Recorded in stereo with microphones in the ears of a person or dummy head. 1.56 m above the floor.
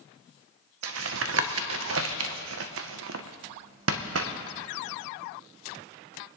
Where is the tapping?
70° right (ahead or behind), 0.6 m.